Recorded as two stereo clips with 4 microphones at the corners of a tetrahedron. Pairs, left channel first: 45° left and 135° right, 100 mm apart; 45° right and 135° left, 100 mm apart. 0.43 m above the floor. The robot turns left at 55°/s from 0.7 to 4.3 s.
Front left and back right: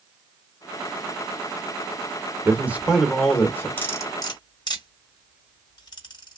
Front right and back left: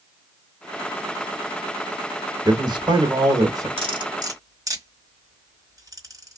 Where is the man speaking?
165° left, 1.0 m; by 3.7 s 100° left, 1.0 m.